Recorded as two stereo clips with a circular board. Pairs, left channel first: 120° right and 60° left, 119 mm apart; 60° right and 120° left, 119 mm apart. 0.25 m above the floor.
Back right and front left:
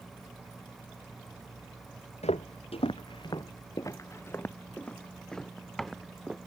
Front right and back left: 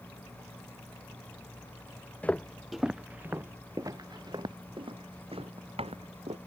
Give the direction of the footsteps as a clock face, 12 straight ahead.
5 o'clock.